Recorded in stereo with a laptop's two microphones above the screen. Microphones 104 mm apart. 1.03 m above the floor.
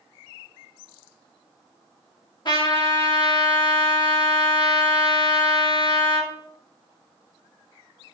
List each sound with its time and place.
2.5 s a trumpet: 50° left (ahead or behind), 1.7 m